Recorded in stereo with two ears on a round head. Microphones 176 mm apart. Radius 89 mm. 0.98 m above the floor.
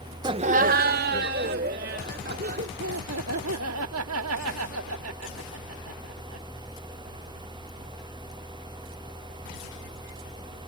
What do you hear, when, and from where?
0.2 s laughter: 20° right (ahead or behind); by 2.7 s 45° right (ahead or behind)
2.8 s laughter: 75° right (ahead or behind)